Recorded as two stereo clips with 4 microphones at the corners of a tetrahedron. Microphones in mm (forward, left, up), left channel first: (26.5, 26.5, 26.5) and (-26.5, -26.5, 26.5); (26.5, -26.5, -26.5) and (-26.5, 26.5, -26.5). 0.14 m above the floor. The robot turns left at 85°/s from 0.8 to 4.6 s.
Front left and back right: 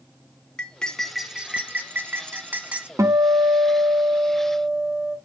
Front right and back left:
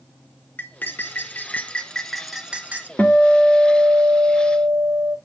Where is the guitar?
110° right, 0.7 m; by 5.2 s 115° left, 0.7 m.